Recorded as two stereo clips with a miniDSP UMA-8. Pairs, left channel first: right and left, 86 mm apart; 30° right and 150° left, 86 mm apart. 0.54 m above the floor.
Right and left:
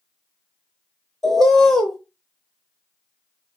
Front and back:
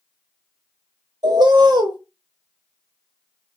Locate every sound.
1.2 s a bird: 175° right, 0.8 m